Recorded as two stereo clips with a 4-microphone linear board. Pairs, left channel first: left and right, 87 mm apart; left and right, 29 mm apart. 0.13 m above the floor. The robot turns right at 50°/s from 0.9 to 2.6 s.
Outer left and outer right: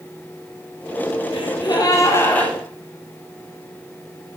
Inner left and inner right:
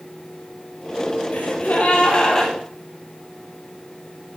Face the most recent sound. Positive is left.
turn(degrees=175)